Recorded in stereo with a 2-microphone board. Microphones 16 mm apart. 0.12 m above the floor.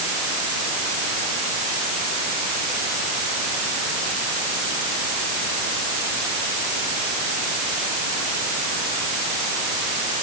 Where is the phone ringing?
No phone ringing in this recording.